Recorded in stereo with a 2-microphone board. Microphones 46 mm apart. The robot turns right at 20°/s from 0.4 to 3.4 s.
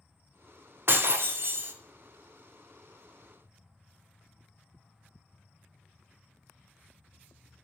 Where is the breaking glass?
55° right (ahead or behind), 0.8 m.